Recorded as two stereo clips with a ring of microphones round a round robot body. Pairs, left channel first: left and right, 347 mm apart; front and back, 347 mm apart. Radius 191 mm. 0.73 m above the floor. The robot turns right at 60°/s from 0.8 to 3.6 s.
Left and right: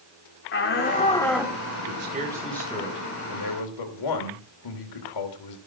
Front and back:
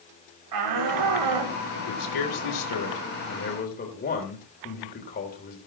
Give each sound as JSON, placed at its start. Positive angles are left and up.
{"t": 0.5, "sound": "a shout", "azimuth_deg": 145, "distance_m": 2.5}
{"t": 1.8, "sound": "a man speaking", "azimuth_deg": -40, "distance_m": 3.0}